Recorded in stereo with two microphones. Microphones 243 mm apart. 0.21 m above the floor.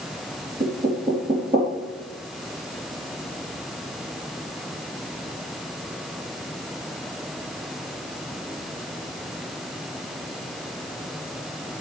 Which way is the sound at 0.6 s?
40° right (ahead or behind).